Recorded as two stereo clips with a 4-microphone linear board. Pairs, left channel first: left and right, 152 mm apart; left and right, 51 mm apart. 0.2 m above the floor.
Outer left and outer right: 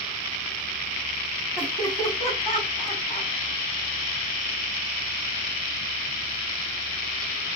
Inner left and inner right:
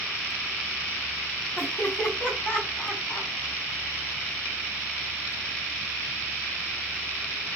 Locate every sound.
1.6 s laughter: 10° left (ahead or behind), 1.7 m; by 3.3 s 30° left (ahead or behind), 1.8 m